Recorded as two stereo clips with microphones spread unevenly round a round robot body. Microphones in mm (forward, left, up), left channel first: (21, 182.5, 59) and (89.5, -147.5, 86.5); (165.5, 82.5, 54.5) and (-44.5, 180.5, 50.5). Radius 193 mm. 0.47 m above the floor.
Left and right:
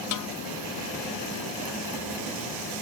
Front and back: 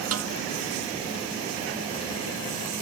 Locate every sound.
0.1 s a snare drum: 140° left